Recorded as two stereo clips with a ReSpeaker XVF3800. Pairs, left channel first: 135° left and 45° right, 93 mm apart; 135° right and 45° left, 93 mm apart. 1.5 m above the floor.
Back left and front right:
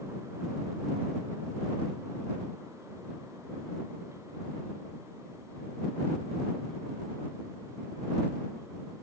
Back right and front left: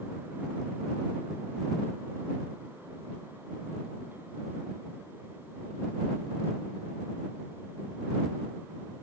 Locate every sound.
Only background noise.